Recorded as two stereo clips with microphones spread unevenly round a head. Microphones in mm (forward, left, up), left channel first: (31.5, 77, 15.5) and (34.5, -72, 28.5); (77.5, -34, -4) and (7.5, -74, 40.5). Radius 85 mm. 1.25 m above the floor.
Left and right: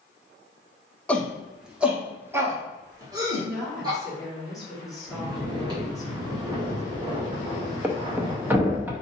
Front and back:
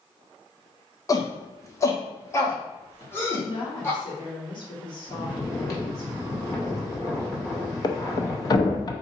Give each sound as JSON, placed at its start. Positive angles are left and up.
{"t": 1.1, "sound": "a shout", "azimuth_deg": 10, "distance_m": 1.1}
{"t": 3.4, "sound": "a woman speaking", "azimuth_deg": 0, "distance_m": 2.0}
{"t": 5.1, "sound": "snoring", "azimuth_deg": -30, "distance_m": 2.0}
{"t": 7.8, "sound": "a thud", "azimuth_deg": -30, "distance_m": 0.6}